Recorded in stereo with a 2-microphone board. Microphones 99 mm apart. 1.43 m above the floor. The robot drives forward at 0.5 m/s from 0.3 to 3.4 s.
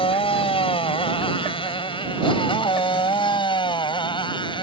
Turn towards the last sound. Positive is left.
turn(degrees=60)  # may be behind; listen again after turning